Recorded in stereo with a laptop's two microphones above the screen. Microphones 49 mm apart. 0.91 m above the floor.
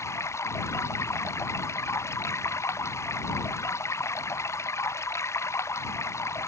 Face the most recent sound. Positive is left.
turn(degrees=70)  # may be behind; listen again after turning